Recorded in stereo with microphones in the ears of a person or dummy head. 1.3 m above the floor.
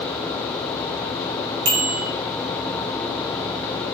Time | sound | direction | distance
1.6 | a bicycle bell | 60° right (ahead or behind) | 4 m